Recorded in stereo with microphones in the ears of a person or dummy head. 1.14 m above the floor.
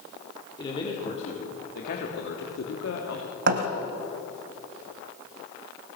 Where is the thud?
50° right (ahead or behind), 2 m.